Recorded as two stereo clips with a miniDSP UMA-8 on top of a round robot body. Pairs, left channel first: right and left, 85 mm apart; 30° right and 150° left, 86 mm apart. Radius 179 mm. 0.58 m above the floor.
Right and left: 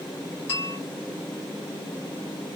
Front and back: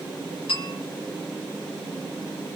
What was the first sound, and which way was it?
A bell, 30° right.